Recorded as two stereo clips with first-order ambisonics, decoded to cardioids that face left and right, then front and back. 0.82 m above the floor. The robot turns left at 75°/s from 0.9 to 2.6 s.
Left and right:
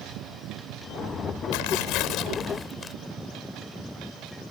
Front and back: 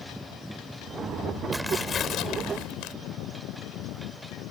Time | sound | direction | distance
1.5 | tearing paper | 95° left | ?